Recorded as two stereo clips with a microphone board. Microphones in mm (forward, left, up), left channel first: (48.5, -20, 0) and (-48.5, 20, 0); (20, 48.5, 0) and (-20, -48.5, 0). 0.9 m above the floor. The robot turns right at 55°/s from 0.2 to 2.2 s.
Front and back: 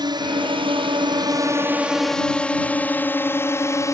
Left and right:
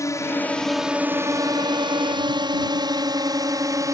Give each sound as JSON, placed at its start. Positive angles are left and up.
{"t": 0.0, "sound": "a drone", "azimuth_deg": 120}